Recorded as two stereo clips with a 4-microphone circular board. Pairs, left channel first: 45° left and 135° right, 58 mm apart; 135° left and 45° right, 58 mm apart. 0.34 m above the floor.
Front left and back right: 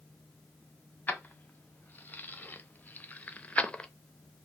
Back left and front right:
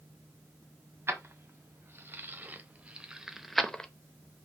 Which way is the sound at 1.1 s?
10° right.